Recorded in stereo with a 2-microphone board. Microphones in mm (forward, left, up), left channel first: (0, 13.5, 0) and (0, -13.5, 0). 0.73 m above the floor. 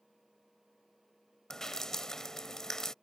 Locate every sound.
1.5 s dripping: 20° left (ahead or behind)